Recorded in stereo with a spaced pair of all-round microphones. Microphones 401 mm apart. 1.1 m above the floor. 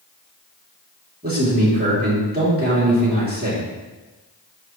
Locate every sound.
1.2 s a man speaking: 25° right (ahead or behind), 3 m